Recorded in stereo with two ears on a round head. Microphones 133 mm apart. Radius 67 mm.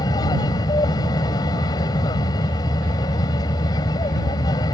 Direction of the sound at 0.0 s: 25° left (ahead or behind).